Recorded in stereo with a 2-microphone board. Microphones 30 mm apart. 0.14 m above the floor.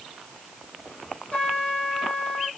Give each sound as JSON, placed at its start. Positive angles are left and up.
{"t": 1.3, "sound": "a trumpet", "side_deg": 45, "distance_m": 3.5}